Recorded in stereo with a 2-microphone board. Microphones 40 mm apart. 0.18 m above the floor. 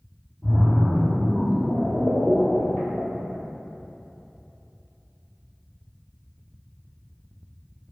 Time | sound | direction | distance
0.4 | a splash | 5° right (ahead or behind) | 1.0 m